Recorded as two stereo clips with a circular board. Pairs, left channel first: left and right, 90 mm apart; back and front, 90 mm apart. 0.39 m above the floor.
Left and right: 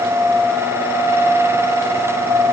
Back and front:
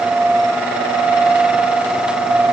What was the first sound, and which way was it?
Only background noise.